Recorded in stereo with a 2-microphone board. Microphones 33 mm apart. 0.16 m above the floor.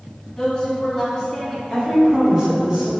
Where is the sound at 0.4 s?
25° left (ahead or behind), 1.2 m.